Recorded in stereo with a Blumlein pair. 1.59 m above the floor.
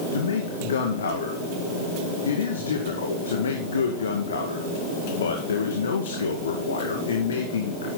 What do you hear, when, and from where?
0.1 s a man speaking: 65° left, 2 m